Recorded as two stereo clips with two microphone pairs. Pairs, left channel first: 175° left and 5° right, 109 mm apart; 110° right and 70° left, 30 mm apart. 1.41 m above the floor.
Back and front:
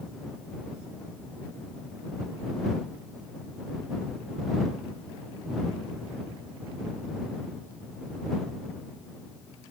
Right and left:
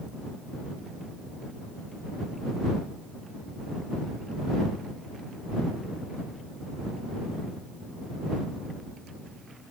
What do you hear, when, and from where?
Only background noise.